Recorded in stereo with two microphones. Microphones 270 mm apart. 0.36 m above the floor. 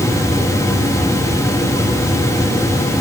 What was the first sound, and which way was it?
Only background noise.